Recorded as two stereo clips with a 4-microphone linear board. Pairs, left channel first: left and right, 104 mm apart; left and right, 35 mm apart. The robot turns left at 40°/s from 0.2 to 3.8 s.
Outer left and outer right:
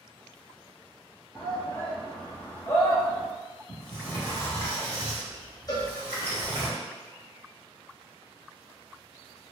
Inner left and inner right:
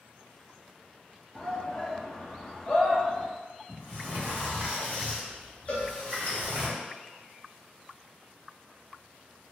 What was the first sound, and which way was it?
A shout, 30° left (ahead or behind).